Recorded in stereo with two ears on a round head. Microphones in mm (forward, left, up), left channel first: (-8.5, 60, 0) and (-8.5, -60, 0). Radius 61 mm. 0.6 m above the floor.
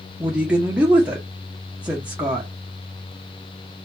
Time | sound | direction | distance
0.2 | a woman speaking | 10° right (ahead or behind) | 0.7 m